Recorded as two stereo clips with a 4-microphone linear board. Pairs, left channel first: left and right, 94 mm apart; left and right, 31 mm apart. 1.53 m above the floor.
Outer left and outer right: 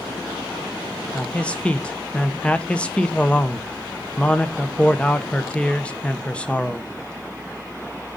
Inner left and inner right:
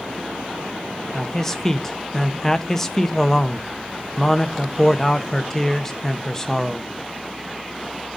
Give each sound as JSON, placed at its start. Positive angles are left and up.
{"t": 1.1, "sound": "a man speaking", "side_deg": 15, "distance_m": 0.9}